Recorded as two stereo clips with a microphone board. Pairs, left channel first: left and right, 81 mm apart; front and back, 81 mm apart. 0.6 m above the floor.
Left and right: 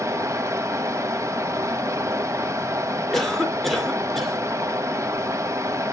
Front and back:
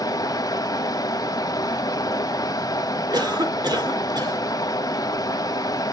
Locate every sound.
0.0 s running water: 40° right, 1.0 m
3.1 s a cough: 175° left, 2 m